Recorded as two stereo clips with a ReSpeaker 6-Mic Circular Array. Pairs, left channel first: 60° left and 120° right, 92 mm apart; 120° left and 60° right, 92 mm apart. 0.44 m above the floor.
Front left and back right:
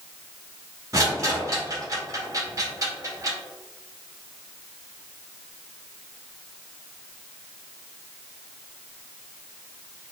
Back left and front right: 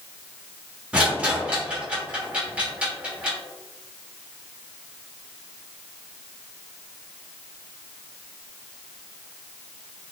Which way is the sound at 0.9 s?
130° right.